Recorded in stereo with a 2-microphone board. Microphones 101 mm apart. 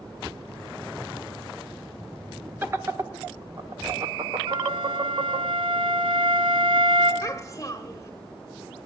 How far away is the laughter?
About 0.7 m.